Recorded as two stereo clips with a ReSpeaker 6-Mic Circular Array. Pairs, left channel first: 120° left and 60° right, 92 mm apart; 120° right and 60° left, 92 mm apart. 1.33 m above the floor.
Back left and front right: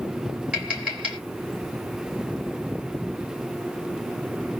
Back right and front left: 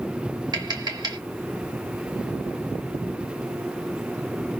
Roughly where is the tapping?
Ahead.